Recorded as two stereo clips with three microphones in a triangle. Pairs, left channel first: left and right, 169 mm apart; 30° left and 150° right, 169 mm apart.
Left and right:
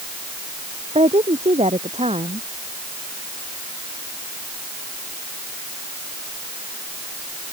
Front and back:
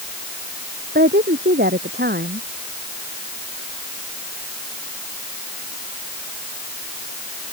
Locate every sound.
0.9 s a woman speaking: 140° right